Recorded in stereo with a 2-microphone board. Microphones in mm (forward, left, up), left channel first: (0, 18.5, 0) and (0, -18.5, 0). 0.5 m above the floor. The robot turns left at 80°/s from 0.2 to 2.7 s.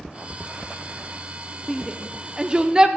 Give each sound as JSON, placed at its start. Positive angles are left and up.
{"t": 1.7, "sound": "a shout", "side_deg": -5, "distance_m": 0.7}